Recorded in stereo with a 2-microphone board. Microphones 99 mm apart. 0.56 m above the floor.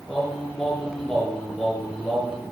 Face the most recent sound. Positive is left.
turn(degrees=0)  # may be behind; listen again after turning